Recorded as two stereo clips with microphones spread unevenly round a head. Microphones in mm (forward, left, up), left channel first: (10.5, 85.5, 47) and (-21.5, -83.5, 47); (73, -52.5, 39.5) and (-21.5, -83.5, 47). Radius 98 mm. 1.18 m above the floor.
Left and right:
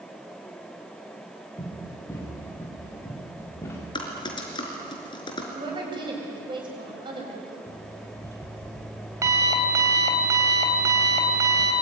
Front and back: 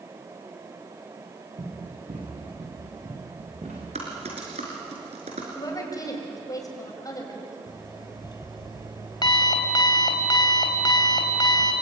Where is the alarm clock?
25° right, 3.5 m.